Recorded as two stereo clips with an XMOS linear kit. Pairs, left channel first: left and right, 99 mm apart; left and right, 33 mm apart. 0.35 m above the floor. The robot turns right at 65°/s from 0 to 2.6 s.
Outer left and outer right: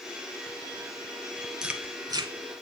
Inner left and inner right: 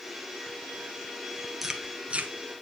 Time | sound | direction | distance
1.6 | chewing | 5° right (ahead or behind) | 1.2 m